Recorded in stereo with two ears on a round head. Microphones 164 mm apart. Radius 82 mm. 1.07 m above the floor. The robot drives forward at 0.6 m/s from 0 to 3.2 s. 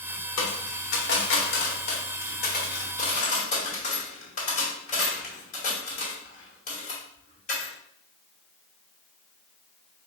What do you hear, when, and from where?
0.4 s a dropped coin: 70° left (ahead or behind), 1.5 m; by 7.7 s 40° left (ahead or behind), 2 m